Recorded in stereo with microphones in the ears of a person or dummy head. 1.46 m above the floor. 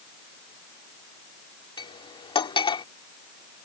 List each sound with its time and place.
1.8 s cutlery clinking: 25° left (ahead or behind)